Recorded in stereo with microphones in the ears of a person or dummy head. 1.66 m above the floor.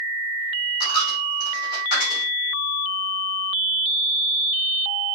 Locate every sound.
0.8 s a dropped coin: 60° left (ahead or behind), 2.5 m